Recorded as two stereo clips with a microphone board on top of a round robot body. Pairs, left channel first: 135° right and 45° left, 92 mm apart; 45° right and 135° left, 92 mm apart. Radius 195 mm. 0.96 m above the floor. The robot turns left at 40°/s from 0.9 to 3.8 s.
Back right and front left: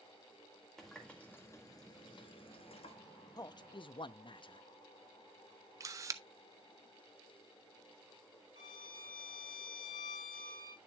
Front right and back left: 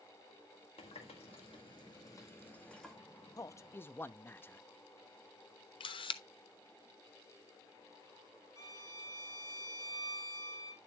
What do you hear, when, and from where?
0.8 s a running tap: 50° right, 1.7 m; by 3.0 s 135° right, 1.7 m
3.4 s a man speaking: 95° right, 0.7 m; by 4.6 s 110° right, 0.7 m
5.8 s a camera shutter: 15° right, 0.6 m
8.6 s a violin: 95° right, 7.5 m